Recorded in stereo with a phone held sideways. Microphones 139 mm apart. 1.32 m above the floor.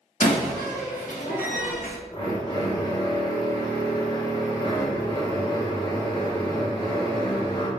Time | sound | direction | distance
0.2 | a door slam | 75° left (ahead or behind) | 1.1 m
2.1 | a drill | 35° left (ahead or behind) | 1.2 m